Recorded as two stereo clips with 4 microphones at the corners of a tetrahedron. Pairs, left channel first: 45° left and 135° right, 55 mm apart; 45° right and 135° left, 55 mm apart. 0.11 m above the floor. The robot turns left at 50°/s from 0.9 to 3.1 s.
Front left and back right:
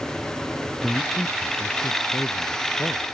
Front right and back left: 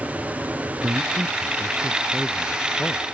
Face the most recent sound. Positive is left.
turn(degrees=-10)